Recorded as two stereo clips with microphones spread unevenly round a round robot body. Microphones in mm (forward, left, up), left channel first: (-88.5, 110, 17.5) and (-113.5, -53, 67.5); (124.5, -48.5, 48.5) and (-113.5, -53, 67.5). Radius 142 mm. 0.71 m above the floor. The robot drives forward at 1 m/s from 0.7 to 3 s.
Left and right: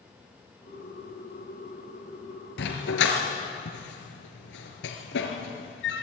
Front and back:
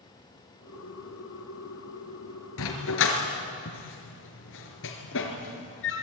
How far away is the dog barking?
About 3 m.